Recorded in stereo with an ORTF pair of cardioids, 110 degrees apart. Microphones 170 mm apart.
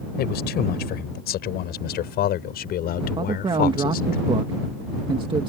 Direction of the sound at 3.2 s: 30° right.